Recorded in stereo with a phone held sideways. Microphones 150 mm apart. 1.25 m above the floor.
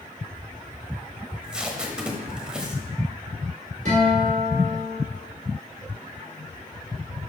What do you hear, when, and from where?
1.3 s tape being pulled: 5° right (ahead or behind), 1.1 m
3.9 s a guitar: 60° right (ahead or behind), 4 m